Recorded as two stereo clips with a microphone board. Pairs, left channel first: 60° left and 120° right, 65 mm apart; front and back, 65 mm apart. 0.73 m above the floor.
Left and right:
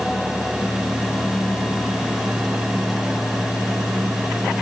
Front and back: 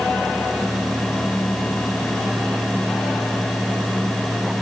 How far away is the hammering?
I don't hear hammering.